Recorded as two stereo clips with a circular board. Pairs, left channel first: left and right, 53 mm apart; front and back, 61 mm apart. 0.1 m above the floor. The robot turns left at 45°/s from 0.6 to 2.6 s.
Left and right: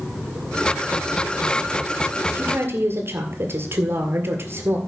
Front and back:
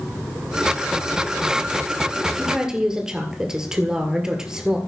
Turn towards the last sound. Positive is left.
turn(degrees=-105)